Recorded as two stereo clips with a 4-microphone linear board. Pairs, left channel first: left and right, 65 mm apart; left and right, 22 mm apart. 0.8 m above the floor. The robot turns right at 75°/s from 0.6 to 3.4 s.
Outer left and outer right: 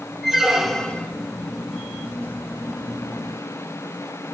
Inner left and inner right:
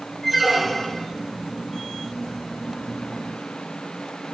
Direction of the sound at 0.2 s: 5° right.